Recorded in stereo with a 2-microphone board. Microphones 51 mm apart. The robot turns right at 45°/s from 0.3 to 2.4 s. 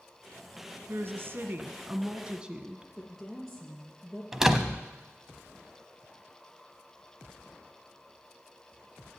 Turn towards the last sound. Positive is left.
turn(degrees=-10)  # may be behind; listen again after turning